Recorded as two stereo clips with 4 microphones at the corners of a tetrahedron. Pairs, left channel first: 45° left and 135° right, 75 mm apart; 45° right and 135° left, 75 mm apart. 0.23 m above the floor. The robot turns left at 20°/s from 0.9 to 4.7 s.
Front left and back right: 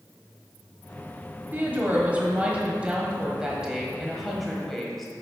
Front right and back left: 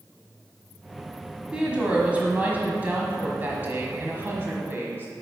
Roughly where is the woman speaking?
Behind.